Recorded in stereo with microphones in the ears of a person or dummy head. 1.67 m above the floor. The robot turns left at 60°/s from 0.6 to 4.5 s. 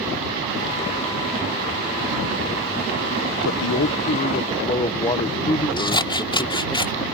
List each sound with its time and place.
3.4 s a man speaking: 90° left; by 6.8 s 25° left
5.8 s scissors: 25° left (ahead or behind)